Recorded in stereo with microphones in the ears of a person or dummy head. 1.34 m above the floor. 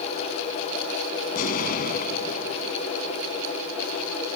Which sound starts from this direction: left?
An explosion, at 1.3 s.